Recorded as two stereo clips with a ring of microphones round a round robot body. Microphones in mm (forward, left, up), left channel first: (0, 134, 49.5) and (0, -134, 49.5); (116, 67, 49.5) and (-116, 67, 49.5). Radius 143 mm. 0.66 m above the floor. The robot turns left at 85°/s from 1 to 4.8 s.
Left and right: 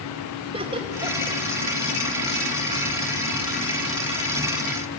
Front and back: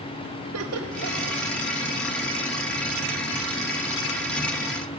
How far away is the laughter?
About 3 m.